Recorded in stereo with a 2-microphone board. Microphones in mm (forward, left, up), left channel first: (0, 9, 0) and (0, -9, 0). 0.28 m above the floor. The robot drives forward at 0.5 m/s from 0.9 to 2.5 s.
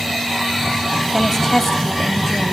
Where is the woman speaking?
30° left (ahead or behind), 1.2 m; by 2.5 s 20° left (ahead or behind), 1.6 m.